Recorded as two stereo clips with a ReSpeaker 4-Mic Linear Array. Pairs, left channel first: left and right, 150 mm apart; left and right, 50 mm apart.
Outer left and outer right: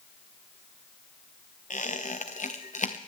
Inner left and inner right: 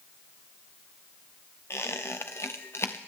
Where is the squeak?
60° left (ahead or behind), 1.3 m.